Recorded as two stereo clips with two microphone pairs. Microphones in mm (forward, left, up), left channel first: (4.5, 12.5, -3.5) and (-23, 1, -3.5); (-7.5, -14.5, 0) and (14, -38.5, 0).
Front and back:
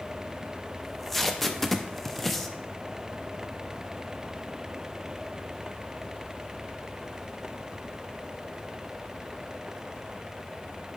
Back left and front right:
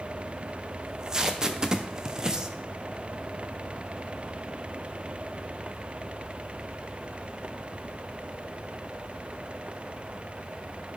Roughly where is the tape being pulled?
Ahead right.